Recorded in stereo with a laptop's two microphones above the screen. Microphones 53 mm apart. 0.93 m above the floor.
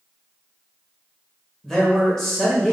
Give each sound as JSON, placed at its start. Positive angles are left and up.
{"t": 1.6, "sound": "a man speaking", "side_deg": 10, "distance_m": 0.8}